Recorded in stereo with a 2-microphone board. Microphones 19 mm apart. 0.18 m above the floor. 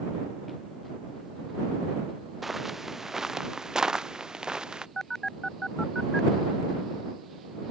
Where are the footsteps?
10° right (ahead or behind); by 4.9 s 45° right (ahead or behind).